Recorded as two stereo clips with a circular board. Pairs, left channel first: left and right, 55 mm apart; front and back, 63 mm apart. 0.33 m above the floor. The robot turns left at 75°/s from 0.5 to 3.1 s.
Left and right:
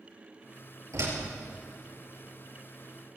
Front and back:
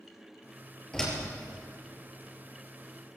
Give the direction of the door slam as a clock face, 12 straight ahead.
3 o'clock.